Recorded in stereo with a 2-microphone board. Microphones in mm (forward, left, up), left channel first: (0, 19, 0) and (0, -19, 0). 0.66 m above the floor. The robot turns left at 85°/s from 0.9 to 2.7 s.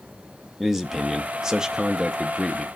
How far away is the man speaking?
About 0.5 m.